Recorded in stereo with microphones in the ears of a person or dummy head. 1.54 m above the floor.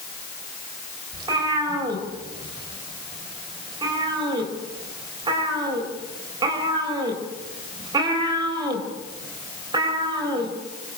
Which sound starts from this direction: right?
A cat meowing, at 1.1 s.